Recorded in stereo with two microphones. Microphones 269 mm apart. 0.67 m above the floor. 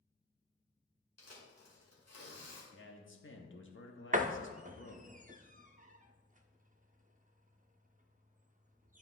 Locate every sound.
1.2 s tearing paper: 75° left (ahead or behind), 2 m
2.7 s a man speaking: 50° left (ahead or behind), 1.0 m
4.1 s a door slam: 30° right (ahead or behind), 0.5 m